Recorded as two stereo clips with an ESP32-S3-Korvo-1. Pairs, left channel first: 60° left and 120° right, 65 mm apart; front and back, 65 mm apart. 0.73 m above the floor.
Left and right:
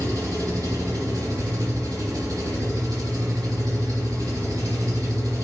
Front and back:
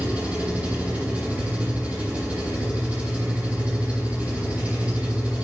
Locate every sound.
0.0 s an engine running: 110° right, 3 m